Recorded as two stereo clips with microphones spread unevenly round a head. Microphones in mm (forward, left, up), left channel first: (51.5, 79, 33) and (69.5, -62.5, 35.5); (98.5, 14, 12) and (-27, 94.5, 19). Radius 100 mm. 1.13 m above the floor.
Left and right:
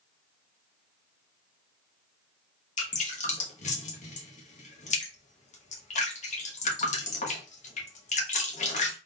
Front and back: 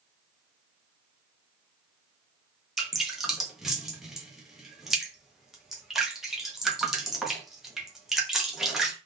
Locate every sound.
2.8 s dripping: 60° left, 1.1 m